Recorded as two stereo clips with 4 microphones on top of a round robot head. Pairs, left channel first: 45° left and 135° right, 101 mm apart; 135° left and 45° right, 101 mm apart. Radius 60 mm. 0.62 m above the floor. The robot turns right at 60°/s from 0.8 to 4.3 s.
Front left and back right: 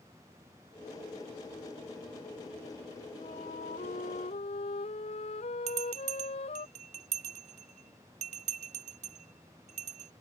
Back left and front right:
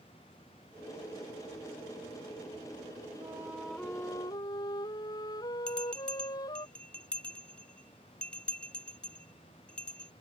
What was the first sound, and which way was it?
A flute, 15° left.